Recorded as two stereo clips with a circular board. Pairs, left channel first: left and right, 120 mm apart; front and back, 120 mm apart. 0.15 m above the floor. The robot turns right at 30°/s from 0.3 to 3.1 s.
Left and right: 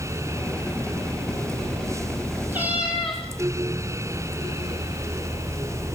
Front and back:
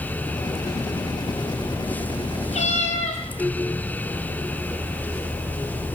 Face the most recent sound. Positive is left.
turn(degrees=0)